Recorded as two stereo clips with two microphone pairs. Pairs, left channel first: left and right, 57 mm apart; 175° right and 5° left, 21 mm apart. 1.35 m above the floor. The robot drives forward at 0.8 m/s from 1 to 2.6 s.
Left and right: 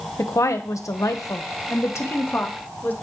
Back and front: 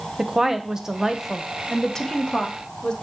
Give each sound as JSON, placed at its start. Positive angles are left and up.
{"t": 0.2, "sound": "a woman speaking", "azimuth_deg": 70, "distance_m": 0.9}